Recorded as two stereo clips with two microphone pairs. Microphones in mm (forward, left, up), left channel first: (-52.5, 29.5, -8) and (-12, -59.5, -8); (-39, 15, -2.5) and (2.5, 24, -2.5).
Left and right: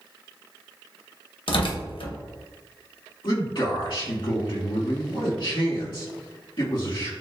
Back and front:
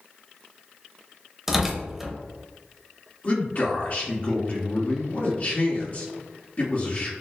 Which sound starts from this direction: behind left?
A man speaking, at 3.2 s.